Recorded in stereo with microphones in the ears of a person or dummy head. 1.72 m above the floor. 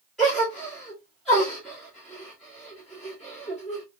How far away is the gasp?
About 1.6 m.